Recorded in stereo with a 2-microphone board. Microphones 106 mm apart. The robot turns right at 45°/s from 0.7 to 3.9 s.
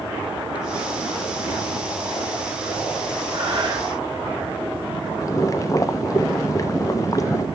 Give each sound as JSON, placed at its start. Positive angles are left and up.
{"t": 3.3, "sound": "breathing", "side_deg": -50, "distance_m": 2.5}
{"t": 5.2, "sound": "boiling", "side_deg": 30, "distance_m": 0.7}